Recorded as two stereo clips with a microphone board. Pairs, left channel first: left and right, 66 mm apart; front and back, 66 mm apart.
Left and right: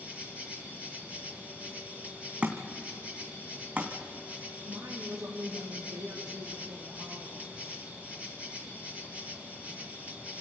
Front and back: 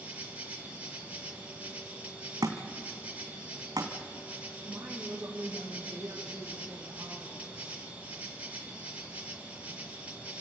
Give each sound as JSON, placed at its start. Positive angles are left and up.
{"t": 0.0, "sound": "an insect", "azimuth_deg": -135, "distance_m": 2.0}
{"t": 2.4, "sound": "a thud", "azimuth_deg": -155, "distance_m": 3.0}
{"t": 4.6, "sound": "a woman speaking", "azimuth_deg": -95, "distance_m": 3.5}